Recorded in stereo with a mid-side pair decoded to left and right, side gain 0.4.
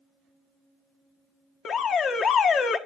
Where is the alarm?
65° left, 1.3 m.